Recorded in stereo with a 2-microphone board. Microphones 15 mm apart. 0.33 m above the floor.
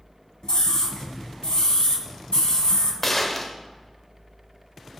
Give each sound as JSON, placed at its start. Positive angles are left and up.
{"t": 0.4, "sound": "a scream", "side_deg": 60, "distance_m": 2.5}
{"t": 3.0, "sound": "a gunshot", "side_deg": 20, "distance_m": 1.0}